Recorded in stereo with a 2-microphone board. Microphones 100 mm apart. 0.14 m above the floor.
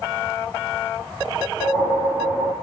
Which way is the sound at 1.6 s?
45° left (ahead or behind).